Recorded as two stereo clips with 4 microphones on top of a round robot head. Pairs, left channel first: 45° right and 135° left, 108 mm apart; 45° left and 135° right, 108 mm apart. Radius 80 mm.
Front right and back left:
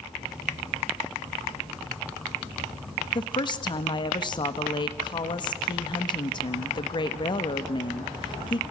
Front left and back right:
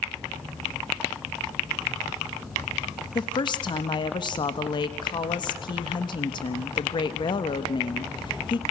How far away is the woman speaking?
About 1.2 m.